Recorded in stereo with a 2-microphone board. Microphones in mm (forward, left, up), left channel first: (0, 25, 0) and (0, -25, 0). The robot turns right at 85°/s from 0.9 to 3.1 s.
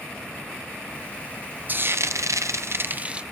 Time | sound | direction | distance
1.7 | frying | 145° right | 0.5 m